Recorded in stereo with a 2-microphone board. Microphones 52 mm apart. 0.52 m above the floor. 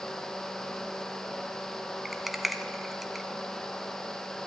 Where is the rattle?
5° right (ahead or behind), 0.8 m.